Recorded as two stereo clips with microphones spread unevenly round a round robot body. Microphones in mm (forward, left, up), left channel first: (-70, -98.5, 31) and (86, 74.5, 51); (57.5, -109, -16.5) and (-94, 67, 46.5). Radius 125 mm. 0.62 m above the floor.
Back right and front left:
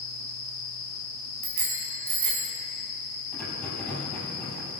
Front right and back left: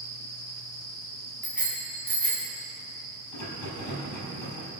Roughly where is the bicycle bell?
Ahead left.